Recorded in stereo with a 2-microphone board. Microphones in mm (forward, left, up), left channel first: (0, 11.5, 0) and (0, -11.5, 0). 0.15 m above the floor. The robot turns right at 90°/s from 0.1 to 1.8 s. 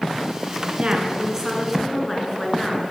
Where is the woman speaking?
80° right, 1.7 m; by 2.8 s 15° left, 1.7 m.